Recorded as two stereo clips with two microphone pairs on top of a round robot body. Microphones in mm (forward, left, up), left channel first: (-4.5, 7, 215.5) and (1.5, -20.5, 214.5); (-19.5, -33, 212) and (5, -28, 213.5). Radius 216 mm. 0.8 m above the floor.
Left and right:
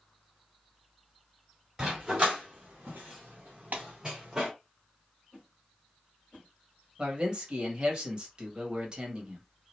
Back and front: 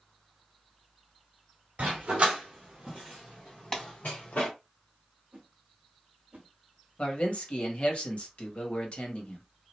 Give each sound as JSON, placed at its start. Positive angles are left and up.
{"t": 1.8, "sound": "a dog barking", "azimuth_deg": -15, "distance_m": 0.9}
{"t": 3.7, "sound": "a clap", "azimuth_deg": -95, "distance_m": 1.7}
{"t": 5.3, "sound": "a whoosh", "azimuth_deg": 45, "distance_m": 0.6}
{"t": 7.0, "sound": "a man speaking", "azimuth_deg": -135, "distance_m": 1.6}